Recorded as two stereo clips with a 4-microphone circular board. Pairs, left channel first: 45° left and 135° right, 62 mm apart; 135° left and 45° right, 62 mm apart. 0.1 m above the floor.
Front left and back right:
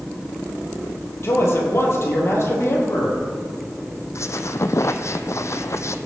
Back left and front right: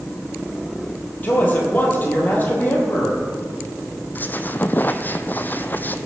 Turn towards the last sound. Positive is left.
turn(degrees=80)